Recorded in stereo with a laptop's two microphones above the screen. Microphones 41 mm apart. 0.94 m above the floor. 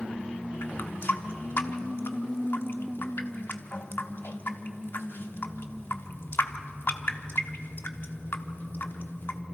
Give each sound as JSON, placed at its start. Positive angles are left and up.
{"t": 0.6, "sound": "a running tap", "side_deg": 60, "distance_m": 1.1}